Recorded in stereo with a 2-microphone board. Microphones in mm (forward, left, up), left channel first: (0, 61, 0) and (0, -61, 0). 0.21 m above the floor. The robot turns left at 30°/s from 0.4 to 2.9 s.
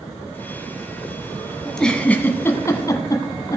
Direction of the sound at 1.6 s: Centre (ahead or behind).